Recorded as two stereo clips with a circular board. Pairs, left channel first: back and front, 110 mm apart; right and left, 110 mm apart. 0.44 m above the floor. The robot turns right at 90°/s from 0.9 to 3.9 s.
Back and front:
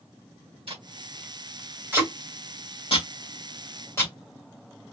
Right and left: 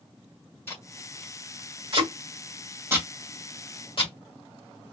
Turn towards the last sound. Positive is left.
turn(degrees=-115)